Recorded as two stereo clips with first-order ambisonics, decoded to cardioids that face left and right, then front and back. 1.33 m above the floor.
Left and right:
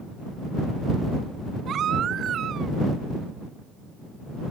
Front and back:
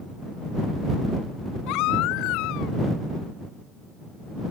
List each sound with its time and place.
1.7 s a baby crying: 30° right